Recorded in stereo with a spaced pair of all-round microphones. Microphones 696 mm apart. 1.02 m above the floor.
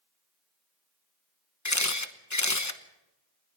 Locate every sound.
1.6 s a camera shutter: 25° left (ahead or behind), 1.0 m